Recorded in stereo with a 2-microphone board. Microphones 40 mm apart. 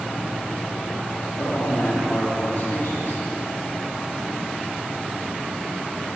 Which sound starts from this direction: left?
A man speaking, at 1.4 s.